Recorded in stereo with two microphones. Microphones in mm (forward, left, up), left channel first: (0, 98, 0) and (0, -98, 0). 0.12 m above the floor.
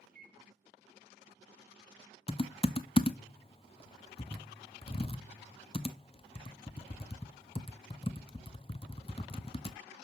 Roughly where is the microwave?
Right.